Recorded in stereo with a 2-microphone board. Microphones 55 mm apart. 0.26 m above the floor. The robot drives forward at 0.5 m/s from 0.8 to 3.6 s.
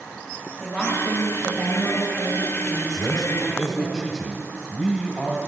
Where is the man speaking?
5° right (ahead or behind), 1.0 m.